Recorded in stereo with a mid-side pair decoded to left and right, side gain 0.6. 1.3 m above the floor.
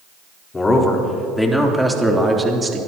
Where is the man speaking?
25° left, 4 m; by 2.8 s 25° right, 3 m.